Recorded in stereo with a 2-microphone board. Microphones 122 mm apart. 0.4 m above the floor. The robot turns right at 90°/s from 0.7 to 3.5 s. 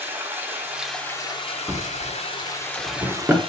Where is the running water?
15° right, 1.3 m; by 3.5 s 125° right, 1.3 m.